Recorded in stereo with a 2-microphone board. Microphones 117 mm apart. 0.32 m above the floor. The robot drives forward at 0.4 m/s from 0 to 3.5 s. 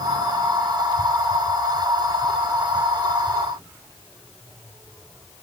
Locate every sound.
Only background noise.